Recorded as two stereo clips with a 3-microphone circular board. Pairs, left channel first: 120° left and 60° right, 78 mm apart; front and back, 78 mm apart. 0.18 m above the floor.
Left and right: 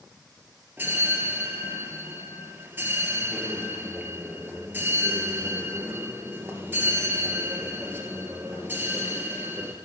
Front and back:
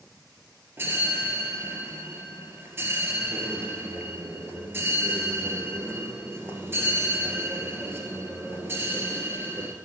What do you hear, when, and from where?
0.8 s a bell: 120° right, 1.5 m